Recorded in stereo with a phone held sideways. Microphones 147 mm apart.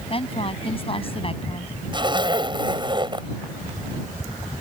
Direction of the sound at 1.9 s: 30° right (ahead or behind).